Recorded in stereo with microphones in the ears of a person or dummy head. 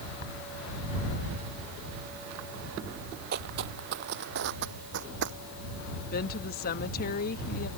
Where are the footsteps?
50° right (ahead or behind); by 5.4 s 60° right (ahead or behind).